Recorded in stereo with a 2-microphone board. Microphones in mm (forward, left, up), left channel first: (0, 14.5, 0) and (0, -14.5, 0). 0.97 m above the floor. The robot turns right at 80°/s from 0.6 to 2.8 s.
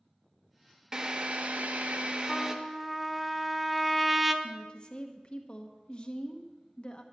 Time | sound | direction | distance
0.9 | a drill | 155° right | 1.0 m
2.3 | a trumpet | 150° left | 0.7 m
4.4 | a woman speaking | 35° left (ahead or behind) | 0.9 m